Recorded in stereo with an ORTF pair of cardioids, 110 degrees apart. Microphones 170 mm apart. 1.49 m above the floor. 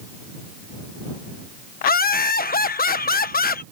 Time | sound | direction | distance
1.8 | laughter | 60° left | ?